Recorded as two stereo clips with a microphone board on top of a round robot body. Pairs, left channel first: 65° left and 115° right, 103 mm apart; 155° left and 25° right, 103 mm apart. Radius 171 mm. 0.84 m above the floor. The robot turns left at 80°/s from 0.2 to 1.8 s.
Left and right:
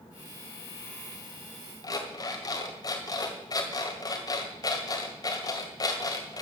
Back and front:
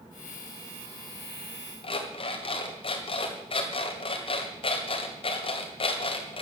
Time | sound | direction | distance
1.8 | an alarm clock | 120° left | 1.8 m